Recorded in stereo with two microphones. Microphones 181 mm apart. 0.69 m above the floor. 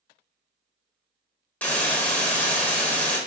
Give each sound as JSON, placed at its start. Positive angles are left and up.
{"t": 1.6, "sound": "a hiss", "side_deg": 10, "distance_m": 0.5}